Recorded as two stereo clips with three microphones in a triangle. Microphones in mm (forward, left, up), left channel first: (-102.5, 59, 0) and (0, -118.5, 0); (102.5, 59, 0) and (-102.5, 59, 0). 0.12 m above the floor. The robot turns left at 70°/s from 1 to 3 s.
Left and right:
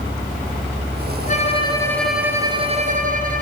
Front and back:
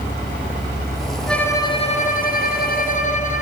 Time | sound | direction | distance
1.3 | a violin | 90° left | 2 m